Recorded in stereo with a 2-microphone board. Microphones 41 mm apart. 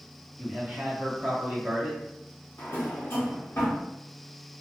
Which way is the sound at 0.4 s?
25° right (ahead or behind).